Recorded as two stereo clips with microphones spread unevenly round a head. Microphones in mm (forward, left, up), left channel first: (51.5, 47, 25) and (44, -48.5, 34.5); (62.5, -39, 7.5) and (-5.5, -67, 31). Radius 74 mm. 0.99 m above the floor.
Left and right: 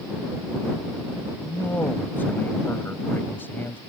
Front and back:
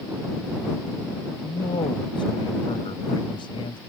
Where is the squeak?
No squeak in this recording.